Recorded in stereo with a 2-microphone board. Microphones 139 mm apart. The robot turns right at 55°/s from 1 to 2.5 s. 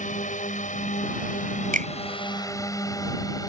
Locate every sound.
0.0 s a drone: 65° left (ahead or behind); by 3.5 s 25° left (ahead or behind)
1.7 s a finger snap: 80° right; by 1.9 s 75° right (ahead or behind)